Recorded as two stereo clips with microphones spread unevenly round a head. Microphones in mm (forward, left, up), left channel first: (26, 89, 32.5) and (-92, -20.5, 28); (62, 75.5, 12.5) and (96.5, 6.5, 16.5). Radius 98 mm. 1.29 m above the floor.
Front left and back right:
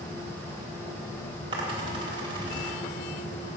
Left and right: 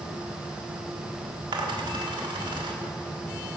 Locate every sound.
1.5 s a dropped coin: 70° right, 1.4 m